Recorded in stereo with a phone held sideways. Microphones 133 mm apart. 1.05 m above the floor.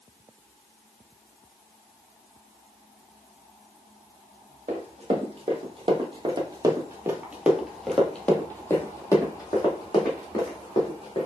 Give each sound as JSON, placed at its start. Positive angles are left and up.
{"t": 4.7, "sound": "running footsteps", "side_deg": -55, "distance_m": 1.7}